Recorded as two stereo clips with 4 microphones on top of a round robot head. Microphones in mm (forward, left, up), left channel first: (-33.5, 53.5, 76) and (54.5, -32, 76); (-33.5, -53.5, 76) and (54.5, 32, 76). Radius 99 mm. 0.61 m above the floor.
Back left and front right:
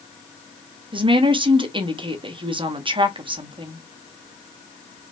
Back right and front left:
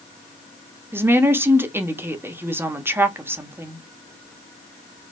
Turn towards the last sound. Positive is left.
turn(degrees=-20)